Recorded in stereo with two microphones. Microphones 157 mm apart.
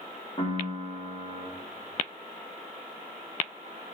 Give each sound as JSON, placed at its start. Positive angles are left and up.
{"t": 0.4, "sound": "a piano", "side_deg": 35, "distance_m": 2.0}